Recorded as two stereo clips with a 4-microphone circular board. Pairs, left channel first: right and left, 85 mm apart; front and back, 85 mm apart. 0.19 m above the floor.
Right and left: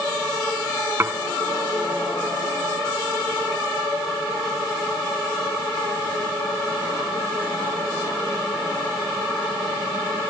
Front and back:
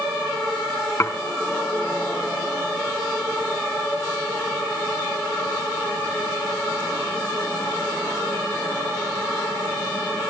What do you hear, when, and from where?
1.0 s dishes clattering: 40° left, 1.3 m